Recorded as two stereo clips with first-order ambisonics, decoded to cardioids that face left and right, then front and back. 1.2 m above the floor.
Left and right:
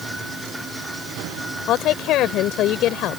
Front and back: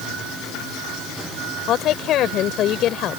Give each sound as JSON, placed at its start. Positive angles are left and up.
{"t": 1.7, "sound": "a woman speaking", "azimuth_deg": 50}